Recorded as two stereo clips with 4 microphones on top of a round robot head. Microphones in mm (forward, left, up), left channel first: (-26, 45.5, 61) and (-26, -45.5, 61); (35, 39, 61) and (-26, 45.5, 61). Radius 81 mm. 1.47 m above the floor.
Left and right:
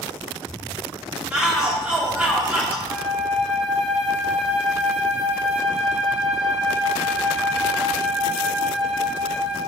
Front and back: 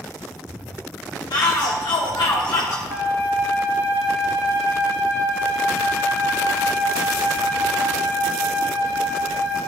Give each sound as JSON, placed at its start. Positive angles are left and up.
{"t": 1.3, "sound": "a shout", "azimuth_deg": -20, "distance_m": 0.9}
{"t": 2.9, "sound": "a flute", "azimuth_deg": -170, "distance_m": 2.0}